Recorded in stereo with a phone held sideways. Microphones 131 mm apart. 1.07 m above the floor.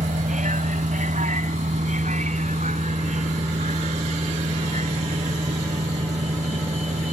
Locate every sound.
0.0 s a vehicle: 80° right; by 7.1 s 65° right (ahead or behind)